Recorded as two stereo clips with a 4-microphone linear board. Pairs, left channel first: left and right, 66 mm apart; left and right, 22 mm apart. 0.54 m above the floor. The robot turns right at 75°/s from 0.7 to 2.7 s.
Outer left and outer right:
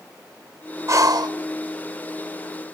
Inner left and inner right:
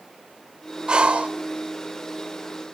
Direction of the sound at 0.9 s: 135° right.